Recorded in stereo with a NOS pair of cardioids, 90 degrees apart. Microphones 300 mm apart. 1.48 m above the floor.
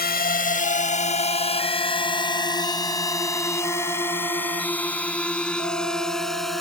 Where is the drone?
30° left; by 6.6 s straight ahead.